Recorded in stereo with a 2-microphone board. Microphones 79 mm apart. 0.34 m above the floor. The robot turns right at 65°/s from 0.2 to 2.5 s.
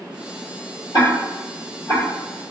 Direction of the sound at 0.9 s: 70° left (ahead or behind).